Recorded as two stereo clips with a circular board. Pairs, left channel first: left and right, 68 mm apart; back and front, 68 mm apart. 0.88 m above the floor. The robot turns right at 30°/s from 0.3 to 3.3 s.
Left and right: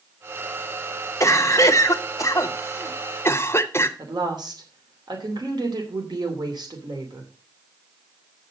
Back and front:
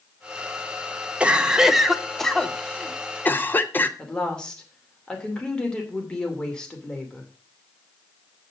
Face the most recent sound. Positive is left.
turn(degrees=-100)